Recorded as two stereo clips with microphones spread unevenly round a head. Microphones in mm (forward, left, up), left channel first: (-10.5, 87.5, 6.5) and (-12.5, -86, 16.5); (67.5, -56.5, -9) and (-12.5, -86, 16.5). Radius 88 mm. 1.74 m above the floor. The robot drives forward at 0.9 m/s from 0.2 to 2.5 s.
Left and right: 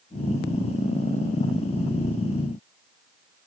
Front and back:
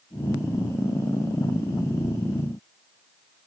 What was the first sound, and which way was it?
Only background noise.